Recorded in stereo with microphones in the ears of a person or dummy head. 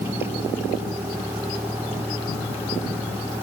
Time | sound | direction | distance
0.0 | a vehicle | 15° right (ahead or behind) | ?